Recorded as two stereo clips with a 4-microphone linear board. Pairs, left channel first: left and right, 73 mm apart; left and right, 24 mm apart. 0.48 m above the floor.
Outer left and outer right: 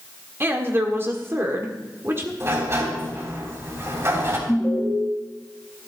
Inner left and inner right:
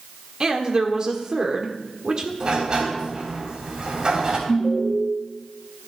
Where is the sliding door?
40° right (ahead or behind), 3 m.